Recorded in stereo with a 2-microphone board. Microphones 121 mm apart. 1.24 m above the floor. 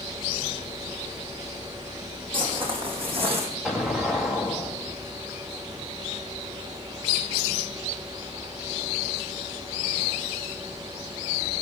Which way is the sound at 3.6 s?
5° right (ahead or behind).